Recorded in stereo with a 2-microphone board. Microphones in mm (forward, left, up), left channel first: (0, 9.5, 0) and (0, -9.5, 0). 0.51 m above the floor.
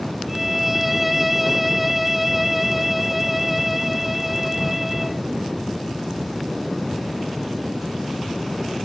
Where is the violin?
10° right (ahead or behind).